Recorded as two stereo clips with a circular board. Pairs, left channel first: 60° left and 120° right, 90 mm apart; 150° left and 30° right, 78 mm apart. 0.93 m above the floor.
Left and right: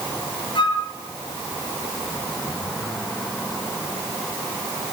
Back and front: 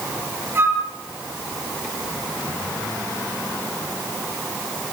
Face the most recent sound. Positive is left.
turn(degrees=30)